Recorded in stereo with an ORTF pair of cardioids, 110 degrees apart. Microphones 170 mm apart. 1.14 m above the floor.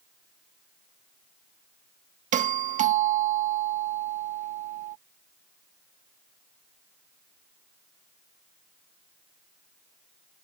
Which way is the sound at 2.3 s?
50° right.